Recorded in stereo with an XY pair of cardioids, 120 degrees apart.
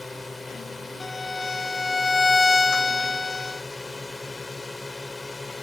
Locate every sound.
0.0 s a drone: 15° left
1.0 s a violin: 20° left